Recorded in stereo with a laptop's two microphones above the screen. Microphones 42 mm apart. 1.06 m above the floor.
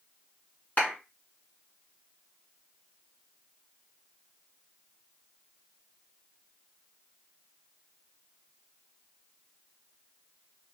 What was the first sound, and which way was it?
A clap, 40° left (ahead or behind).